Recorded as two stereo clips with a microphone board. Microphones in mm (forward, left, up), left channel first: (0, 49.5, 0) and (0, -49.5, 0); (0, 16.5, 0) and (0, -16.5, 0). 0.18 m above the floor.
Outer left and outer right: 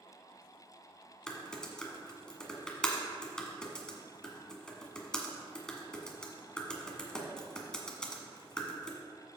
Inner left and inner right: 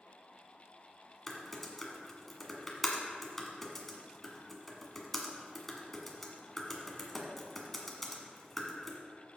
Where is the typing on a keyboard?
10° left (ahead or behind), 1.5 m.